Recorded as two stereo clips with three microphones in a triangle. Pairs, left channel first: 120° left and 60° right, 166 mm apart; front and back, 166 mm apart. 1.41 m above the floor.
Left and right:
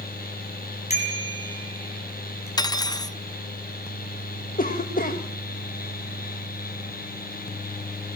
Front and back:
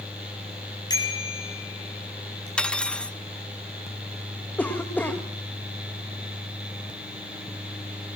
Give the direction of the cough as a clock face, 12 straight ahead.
9 o'clock.